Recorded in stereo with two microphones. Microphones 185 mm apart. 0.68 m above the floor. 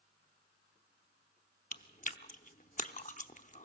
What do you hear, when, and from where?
1.7 s chewing: 45° left (ahead or behind), 0.7 m